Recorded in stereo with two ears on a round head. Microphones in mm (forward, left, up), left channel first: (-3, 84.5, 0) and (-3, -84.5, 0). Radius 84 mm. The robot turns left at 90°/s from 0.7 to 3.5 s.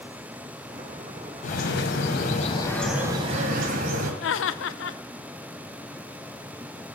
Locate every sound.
1.4 s a bird: 130° left, 1.8 m; by 4.1 s 55° right, 1.8 m
4.2 s laughter: 70° left (ahead or behind), 0.8 m